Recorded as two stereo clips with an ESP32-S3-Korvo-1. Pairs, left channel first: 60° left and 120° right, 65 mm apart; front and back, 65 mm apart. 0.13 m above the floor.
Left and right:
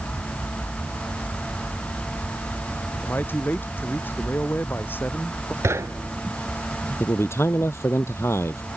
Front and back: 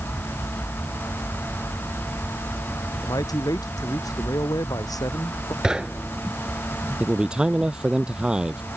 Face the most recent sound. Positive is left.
turn(degrees=105)